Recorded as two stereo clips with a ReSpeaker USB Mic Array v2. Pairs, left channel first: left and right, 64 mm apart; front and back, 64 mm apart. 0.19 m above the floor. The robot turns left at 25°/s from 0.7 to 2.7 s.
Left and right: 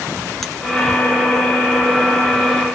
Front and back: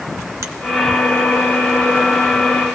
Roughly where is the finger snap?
Behind.